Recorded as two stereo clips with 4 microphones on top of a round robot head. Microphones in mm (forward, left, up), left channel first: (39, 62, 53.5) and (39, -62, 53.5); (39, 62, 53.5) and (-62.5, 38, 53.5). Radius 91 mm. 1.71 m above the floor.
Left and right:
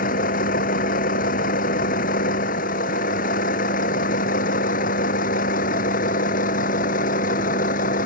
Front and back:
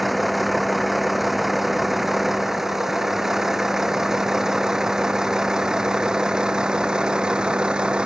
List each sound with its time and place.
0.0 s a vehicle: 105° left; by 8.1 s 110° left